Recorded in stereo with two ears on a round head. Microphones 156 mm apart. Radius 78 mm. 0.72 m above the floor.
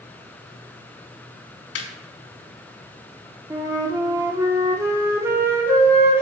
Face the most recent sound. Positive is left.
turn(degrees=-15)  # may be behind; listen again after turning